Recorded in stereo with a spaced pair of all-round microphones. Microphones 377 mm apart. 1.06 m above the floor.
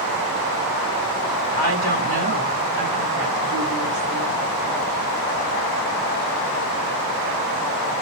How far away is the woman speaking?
About 9 m.